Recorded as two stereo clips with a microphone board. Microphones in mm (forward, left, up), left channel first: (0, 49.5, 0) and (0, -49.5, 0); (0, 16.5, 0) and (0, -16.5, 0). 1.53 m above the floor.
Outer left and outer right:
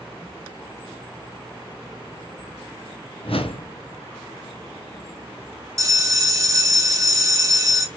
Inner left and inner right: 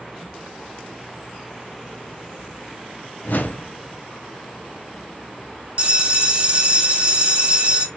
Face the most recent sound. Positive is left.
turn(degrees=-35)  # may be behind; listen again after turning